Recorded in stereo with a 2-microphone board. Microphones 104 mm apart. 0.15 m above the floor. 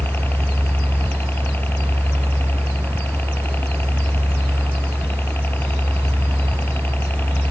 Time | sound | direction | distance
0.0 | a helicopter | 20° left (ahead or behind) | ?